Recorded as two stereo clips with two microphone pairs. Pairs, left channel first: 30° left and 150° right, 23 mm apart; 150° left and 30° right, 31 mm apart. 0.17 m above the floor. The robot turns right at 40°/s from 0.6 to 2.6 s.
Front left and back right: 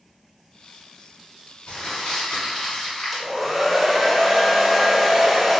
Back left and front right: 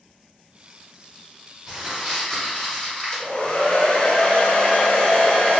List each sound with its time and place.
1.7 s crumpling: 40° left, 1.4 m; by 3.3 s 75° left, 1.4 m
3.1 s a hair dryer: 130° left, 0.7 m